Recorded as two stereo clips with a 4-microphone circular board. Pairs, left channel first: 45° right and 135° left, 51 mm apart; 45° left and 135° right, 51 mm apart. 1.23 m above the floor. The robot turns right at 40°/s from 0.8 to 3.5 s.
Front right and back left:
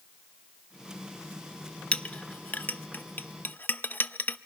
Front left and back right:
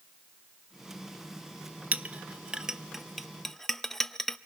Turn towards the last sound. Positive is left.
turn(degrees=-35)